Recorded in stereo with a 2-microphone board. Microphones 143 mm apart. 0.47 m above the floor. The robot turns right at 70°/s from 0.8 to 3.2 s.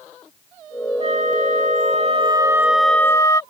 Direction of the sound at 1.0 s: 125° right.